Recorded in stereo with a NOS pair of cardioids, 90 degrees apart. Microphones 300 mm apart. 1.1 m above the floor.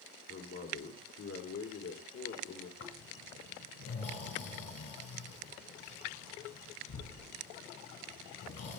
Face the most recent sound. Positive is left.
turn(degrees=50)